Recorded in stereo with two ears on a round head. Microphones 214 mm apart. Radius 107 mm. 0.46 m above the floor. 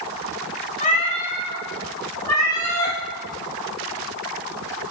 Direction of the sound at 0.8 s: 35° left (ahead or behind).